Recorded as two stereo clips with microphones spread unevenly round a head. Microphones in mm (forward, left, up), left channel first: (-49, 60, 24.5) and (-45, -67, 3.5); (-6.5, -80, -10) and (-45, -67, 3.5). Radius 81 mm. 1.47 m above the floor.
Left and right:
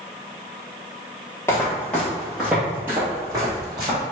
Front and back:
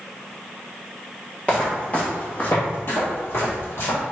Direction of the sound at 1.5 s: 60° left.